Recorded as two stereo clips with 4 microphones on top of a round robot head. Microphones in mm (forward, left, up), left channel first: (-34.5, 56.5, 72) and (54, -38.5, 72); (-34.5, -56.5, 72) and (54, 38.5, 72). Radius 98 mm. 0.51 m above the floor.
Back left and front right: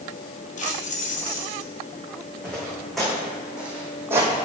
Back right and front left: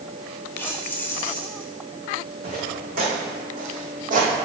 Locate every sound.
0.6 s keys jangling: 155° left, 1.3 m
2.4 s footsteps: 50° left, 2.5 m; by 4.5 s 15° left, 1.3 m